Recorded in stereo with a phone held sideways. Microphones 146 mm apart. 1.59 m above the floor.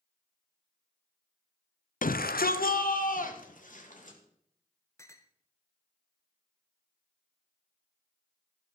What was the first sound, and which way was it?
A shout, 65° left (ahead or behind).